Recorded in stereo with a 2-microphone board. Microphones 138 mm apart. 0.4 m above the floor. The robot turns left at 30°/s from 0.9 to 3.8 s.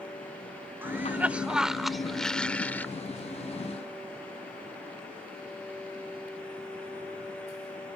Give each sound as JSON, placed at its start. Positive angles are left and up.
{"t": 0.8, "sound": "a cough", "side_deg": -15}